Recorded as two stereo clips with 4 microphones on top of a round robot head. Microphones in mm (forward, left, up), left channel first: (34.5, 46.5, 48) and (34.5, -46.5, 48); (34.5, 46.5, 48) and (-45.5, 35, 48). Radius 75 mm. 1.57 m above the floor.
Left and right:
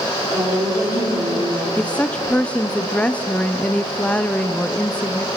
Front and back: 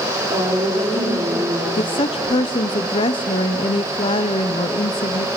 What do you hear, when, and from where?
0.3 s a woman speaking: 170° right, 5 m; by 1.7 s 160° right, 5 m
1.8 s a woman speaking: 15° left, 0.8 m